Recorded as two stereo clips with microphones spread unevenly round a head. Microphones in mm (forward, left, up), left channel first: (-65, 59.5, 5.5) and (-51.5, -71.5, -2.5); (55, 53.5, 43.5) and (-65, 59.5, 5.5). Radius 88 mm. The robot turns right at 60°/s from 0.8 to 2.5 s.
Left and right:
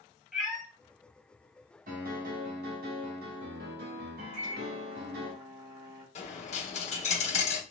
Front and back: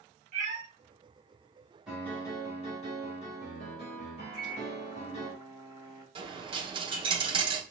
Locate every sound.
0.3 s a cat meowing: 175° right, 1.6 m
1.9 s a piano: 100° right, 1.2 m; by 5.3 s 60° right, 1.2 m
4.3 s a microwave: 55° right, 2.5 m
6.2 s a dropped coin: 125° left, 0.9 m